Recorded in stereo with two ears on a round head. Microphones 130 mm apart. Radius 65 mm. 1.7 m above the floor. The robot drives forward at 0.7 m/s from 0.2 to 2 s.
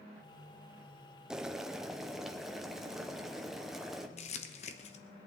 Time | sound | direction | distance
1.3 | boiling | 5° right (ahead or behind) | 0.5 m
4.2 | crumpling | 45° left (ahead or behind) | 1.0 m